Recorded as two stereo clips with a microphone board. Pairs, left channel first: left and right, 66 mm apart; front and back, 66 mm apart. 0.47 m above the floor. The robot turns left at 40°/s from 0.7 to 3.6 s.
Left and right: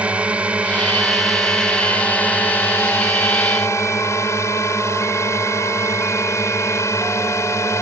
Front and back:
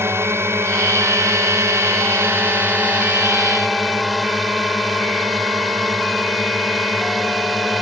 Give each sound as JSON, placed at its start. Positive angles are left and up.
{"t": 0.0, "sound": "a drone", "azimuth_deg": -155}